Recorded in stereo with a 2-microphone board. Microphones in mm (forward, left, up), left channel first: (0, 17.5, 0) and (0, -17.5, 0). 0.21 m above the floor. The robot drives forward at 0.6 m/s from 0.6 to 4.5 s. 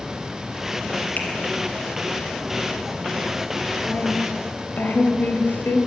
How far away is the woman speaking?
About 4 m.